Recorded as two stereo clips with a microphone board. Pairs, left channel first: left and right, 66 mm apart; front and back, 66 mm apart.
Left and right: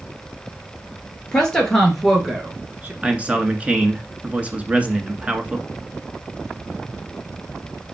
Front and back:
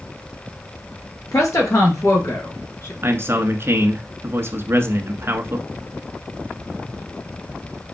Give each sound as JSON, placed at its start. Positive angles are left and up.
{"t": 1.3, "sound": "a woman speaking", "azimuth_deg": 15, "distance_m": 3.0}
{"t": 3.0, "sound": "a man speaking", "azimuth_deg": -150, "distance_m": 1.5}